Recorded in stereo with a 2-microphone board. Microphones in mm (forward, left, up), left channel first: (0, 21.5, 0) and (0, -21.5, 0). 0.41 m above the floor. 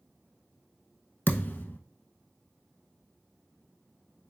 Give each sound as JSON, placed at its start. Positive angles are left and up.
{"t": 1.3, "sound": "a thud", "side_deg": 55, "distance_m": 0.6}